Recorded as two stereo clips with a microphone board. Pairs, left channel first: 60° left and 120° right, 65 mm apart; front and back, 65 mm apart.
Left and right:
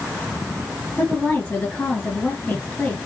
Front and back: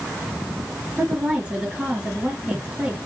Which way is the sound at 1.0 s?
115° left.